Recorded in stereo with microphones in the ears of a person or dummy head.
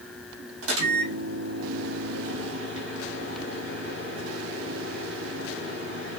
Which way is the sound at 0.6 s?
80° right.